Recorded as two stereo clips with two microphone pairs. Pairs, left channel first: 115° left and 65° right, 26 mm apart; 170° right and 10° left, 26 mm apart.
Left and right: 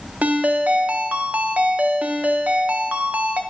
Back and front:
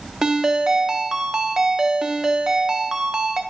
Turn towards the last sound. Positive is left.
turn(degrees=-45)